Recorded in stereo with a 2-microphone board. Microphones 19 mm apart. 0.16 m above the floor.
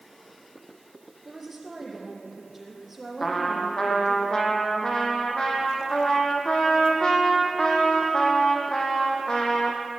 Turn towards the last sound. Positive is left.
turn(degrees=35)  # may be behind; listen again after turning